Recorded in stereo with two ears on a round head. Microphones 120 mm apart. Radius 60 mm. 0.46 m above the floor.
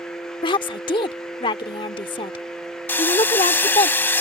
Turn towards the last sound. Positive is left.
turn(degrees=15)  # may be behind; listen again after turning